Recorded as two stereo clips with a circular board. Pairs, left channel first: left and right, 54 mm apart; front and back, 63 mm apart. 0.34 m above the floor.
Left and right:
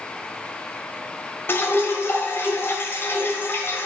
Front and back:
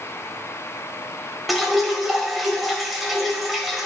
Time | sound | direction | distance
1.5 | dripping | 90° left | 1.9 m